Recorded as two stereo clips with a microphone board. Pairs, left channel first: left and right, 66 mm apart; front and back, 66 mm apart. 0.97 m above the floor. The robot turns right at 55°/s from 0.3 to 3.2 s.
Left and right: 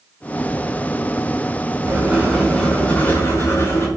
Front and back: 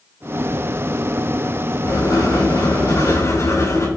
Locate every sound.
1.9 s writing: 35° right, 6.5 m; by 3.9 s 40° left, 6.5 m